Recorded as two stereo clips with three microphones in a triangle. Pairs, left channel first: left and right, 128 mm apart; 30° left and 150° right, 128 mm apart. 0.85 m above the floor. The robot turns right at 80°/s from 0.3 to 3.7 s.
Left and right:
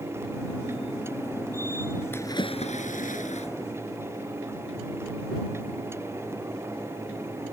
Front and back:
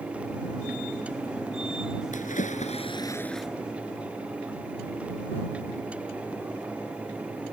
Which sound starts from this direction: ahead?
A splash, at 2.1 s.